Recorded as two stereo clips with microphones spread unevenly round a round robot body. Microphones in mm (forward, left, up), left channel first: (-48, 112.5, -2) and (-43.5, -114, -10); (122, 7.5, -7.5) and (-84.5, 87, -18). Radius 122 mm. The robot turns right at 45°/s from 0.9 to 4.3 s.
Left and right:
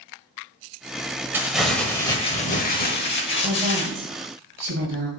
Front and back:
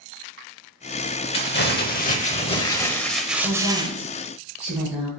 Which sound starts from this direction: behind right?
A woman speaking, at 3.4 s.